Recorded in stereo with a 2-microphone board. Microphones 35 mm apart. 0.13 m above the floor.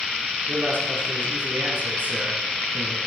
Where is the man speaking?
60° right (ahead or behind), 3 m.